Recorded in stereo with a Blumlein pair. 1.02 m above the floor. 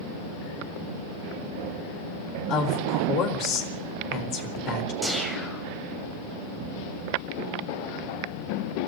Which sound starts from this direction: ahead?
A whoosh, at 5.0 s.